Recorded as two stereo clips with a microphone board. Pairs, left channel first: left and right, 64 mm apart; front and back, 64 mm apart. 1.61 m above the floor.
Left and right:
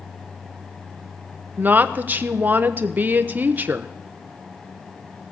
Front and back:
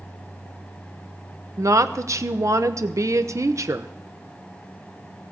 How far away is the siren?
I don't hear a siren.